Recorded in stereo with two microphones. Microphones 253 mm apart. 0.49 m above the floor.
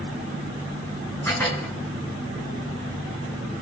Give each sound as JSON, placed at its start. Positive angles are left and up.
{"t": 1.2, "sound": "dishes clattering", "side_deg": 10, "distance_m": 3.5}